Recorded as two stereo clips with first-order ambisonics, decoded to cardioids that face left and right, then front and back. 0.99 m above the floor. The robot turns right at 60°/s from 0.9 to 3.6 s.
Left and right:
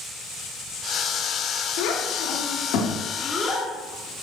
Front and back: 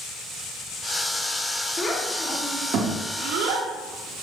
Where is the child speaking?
70° left, 2 m; by 4.2 s straight behind, 2 m.